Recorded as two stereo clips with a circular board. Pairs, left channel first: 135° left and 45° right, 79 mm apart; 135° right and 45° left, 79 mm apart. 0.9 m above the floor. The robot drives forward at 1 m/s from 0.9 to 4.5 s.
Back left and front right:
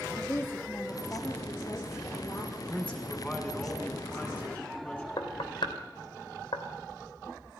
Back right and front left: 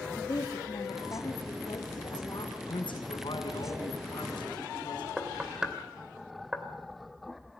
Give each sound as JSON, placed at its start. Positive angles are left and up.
{"t": 0.2, "sound": "a woman speaking", "azimuth_deg": -170, "distance_m": 2.0}
{"t": 2.5, "sound": "a man speaking", "azimuth_deg": -150, "distance_m": 6.5}
{"t": 5.2, "sound": "knocking", "azimuth_deg": 125, "distance_m": 2.5}